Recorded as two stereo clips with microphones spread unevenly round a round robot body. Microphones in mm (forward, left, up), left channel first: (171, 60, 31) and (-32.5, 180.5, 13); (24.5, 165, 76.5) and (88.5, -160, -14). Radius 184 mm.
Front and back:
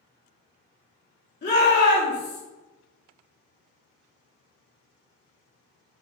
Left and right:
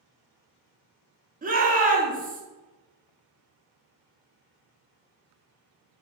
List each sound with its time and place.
1.4 s a shout: 55° right, 1.3 m